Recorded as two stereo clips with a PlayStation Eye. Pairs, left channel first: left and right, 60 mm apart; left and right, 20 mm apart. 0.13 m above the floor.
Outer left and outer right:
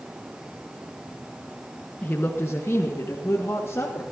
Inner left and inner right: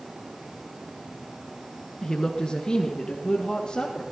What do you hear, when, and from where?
2.0 s a woman speaking: 30° left (ahead or behind), 1.3 m; by 4.0 s 45° left (ahead or behind), 3.5 m